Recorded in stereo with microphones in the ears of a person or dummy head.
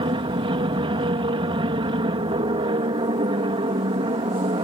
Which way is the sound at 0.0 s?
25° right (ahead or behind).